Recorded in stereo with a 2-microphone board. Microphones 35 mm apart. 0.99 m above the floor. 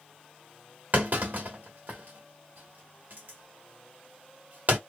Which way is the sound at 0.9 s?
55° right (ahead or behind).